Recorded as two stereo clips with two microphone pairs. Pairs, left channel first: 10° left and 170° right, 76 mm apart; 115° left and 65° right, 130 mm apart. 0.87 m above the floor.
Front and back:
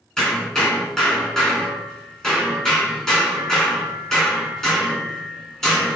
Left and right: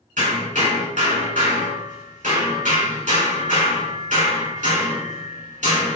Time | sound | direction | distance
0.2 | hammering | 75° right | 4.5 m